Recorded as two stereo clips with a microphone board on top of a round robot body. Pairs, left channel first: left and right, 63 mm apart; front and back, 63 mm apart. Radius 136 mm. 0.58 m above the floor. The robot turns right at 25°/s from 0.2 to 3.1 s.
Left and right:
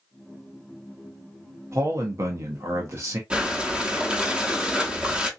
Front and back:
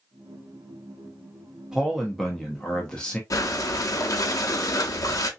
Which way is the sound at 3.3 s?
20° right.